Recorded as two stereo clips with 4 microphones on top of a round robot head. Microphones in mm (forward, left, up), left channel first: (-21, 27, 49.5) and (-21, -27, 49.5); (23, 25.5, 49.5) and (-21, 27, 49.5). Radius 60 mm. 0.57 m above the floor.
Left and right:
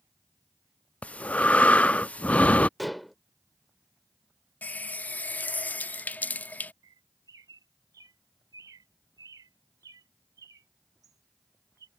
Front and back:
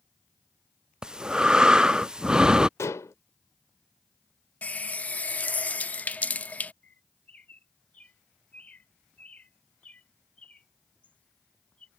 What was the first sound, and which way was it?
Breathing, 125° left.